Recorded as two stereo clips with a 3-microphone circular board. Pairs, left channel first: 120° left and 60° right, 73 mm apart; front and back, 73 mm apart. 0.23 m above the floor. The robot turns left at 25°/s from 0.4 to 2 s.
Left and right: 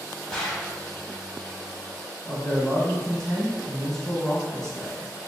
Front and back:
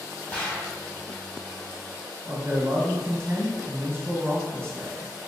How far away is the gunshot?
About 1.0 m.